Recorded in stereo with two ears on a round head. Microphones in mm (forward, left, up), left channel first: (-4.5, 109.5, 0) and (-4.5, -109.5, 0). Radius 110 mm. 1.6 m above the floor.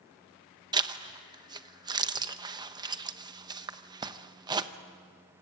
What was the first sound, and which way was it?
A zipper, 15° right (ahead or behind).